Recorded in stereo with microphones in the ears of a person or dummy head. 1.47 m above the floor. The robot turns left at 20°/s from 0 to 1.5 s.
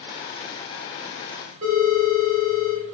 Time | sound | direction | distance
1.6 | a phone ringing | 40° right (ahead or behind) | 1.3 m